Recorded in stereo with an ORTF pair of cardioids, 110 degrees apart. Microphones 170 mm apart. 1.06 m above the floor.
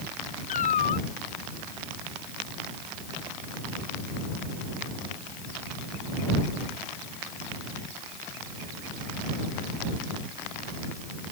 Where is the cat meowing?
50° left.